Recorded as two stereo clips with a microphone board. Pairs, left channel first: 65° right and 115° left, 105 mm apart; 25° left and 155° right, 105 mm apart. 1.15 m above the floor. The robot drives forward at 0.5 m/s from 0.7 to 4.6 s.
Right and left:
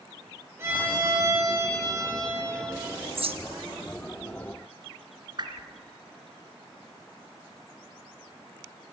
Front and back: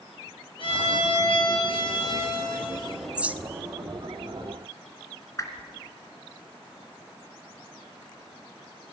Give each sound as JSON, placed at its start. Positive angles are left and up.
{"t": 0.6, "sound": "a violin", "azimuth_deg": 50, "distance_m": 5.0}
{"t": 3.1, "sound": "a bird", "azimuth_deg": 120, "distance_m": 0.7}
{"t": 5.4, "sound": "a whoosh", "azimuth_deg": 75, "distance_m": 2.0}